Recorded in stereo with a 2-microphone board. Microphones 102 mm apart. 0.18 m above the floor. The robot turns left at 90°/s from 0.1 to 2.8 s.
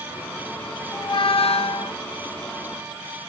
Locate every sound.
0.9 s a squeak: 145° left, 0.7 m; by 2.0 s 50° left, 0.7 m